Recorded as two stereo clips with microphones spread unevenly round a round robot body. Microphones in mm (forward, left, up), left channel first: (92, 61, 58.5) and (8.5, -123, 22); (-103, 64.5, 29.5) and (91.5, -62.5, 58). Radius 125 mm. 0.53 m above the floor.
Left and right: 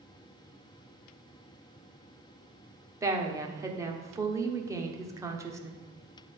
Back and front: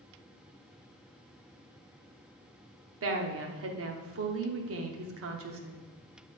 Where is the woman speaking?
50° right, 1.1 m.